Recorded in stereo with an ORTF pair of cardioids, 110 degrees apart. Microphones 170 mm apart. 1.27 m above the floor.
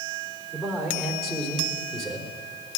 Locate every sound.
0.5 s a man speaking: straight ahead, 3.5 m